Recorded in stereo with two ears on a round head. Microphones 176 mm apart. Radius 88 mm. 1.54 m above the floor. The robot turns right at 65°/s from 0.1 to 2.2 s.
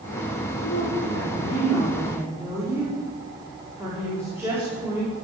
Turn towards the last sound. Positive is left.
turn(degrees=-165)